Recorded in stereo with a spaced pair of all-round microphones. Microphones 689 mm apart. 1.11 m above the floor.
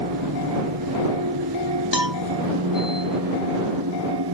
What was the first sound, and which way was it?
A machine running, 30° right (ahead or behind).